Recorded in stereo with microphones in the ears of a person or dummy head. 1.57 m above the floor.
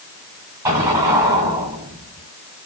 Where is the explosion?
15° right (ahead or behind), 2.0 m.